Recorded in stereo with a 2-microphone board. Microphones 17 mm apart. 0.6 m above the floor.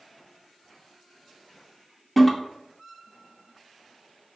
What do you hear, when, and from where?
2.2 s a toilet flushing: 10° left (ahead or behind), 1.0 m